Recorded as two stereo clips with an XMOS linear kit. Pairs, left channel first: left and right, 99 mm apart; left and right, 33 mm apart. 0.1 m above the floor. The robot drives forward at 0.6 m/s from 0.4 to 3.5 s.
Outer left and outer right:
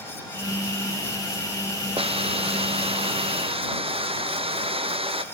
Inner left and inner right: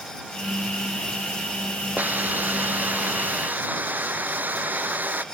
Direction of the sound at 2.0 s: 75° right (ahead or behind).